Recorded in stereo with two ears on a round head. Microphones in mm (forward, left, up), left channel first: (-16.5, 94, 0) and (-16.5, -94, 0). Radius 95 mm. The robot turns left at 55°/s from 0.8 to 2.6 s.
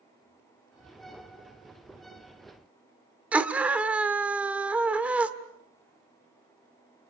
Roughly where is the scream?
Centre.